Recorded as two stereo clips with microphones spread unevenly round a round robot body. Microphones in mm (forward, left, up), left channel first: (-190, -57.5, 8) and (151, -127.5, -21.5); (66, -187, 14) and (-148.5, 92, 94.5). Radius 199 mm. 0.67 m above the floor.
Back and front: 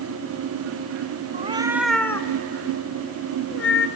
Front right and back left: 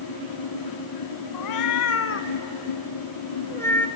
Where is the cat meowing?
80° right, 0.8 m; by 3.9 s 145° right, 1.6 m.